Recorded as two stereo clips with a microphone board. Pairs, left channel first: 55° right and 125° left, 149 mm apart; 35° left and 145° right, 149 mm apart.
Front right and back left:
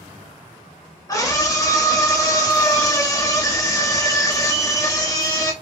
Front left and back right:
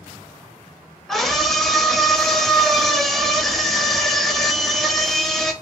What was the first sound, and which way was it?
A scream, 50° right.